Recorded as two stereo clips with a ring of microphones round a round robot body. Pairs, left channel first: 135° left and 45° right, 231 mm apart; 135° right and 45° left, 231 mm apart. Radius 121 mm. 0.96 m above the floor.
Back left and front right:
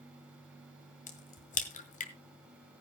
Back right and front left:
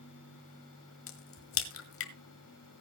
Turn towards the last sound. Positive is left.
turn(degrees=-165)